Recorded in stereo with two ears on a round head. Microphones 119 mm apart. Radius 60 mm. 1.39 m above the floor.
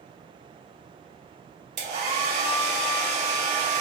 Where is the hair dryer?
55° right (ahead or behind), 1.0 m.